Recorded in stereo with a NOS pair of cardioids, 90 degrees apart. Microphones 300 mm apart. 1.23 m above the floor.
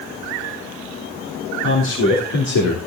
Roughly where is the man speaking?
Ahead left.